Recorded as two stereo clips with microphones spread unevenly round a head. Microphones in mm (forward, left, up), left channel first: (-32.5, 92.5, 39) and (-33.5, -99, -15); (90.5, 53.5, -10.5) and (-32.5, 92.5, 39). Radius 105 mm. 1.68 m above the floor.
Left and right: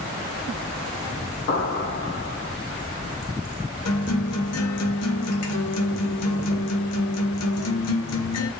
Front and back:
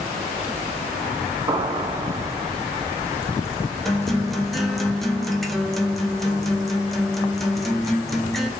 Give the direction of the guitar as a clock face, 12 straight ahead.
10 o'clock.